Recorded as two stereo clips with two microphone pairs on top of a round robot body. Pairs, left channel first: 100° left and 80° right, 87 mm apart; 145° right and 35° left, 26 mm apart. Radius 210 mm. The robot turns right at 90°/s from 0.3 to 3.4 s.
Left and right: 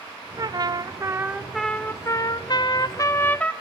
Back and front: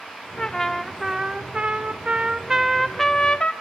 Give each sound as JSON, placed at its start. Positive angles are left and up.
{"t": 0.4, "sound": "a trumpet", "azimuth_deg": -100, "distance_m": 1.5}